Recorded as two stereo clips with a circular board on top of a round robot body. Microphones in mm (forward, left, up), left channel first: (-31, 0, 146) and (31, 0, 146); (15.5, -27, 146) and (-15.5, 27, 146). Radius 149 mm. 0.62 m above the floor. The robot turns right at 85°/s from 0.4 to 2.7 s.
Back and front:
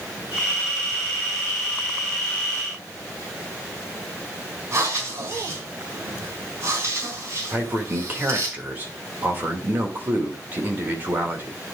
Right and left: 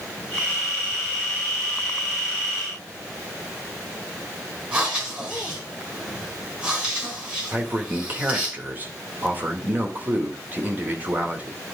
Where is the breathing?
50° left, 3.5 m.